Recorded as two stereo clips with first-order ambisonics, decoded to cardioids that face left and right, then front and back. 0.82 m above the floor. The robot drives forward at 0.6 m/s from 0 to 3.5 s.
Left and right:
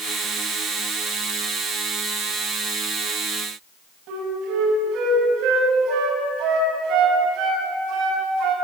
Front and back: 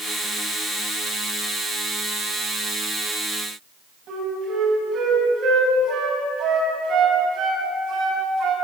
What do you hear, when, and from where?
4.1 s a flute: 125° right, 6 m